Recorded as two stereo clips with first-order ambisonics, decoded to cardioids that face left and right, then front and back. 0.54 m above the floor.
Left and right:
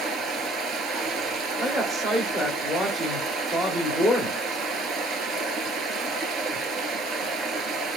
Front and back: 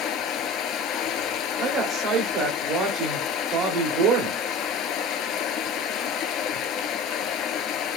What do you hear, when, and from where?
0.0 s running water: 35° right, 0.9 m
1.6 s a woman speaking: 170° right, 1.1 m